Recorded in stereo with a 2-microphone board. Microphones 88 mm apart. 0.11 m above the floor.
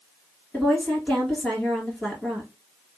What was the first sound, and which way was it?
A woman speaking, 5° left (ahead or behind).